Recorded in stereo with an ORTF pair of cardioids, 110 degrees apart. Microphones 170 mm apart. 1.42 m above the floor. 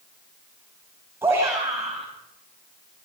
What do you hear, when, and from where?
1.2 s a shout: 15° right, 8 m